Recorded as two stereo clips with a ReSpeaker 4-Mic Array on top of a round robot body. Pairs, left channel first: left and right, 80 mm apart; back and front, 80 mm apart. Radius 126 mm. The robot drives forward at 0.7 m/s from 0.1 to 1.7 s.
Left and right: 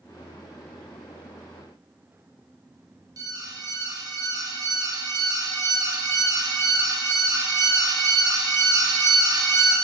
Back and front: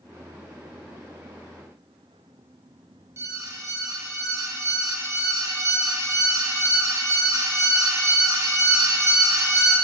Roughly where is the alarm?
Ahead right.